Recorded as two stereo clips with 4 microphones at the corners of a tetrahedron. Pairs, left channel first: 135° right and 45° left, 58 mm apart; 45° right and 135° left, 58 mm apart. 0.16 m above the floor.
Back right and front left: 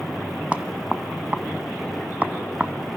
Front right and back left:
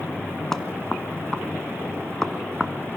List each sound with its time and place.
0.5 s knocking: 20° left, 0.8 m